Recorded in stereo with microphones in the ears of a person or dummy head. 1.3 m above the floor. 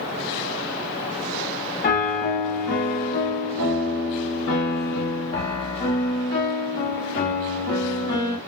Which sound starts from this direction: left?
A piano, at 1.8 s.